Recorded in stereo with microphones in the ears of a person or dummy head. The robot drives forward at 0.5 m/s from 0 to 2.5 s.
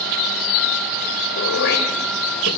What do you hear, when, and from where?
1.4 s throat clearing: 65° left (ahead or behind), 2.5 m; by 2.5 s 60° left (ahead or behind), 3 m